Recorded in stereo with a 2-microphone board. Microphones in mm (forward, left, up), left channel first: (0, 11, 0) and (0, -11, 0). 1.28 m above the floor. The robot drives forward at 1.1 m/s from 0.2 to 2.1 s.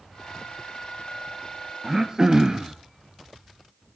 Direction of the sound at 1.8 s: 20° right (ahead or behind).